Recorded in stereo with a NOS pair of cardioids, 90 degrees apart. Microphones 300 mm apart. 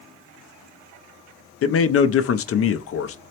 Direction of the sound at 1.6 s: 45° left.